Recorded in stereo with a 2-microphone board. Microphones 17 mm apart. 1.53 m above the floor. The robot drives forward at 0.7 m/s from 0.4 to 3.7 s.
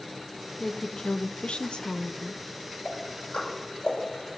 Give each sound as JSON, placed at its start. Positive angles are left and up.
{"t": 0.6, "sound": "a woman speaking", "side_deg": 35, "distance_m": 0.9}
{"t": 2.9, "sound": "ticking", "side_deg": 80, "distance_m": 7.0}